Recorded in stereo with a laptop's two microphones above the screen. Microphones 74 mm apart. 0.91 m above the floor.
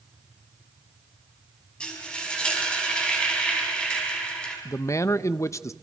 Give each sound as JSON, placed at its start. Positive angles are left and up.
{"t": 1.8, "sound": "frying", "side_deg": 15, "distance_m": 6.5}
{"t": 4.7, "sound": "a man speaking", "side_deg": 45, "distance_m": 0.6}